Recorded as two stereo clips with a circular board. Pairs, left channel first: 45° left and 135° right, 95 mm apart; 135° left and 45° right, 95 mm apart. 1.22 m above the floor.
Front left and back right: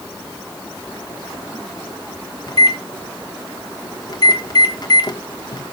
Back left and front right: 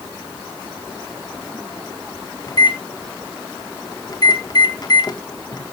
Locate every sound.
2.5 s a microwave: 90° left, 1.3 m